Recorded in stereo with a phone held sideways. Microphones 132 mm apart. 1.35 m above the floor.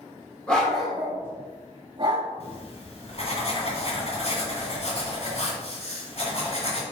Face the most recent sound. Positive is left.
turn(degrees=50)  # may be behind; listen again after turning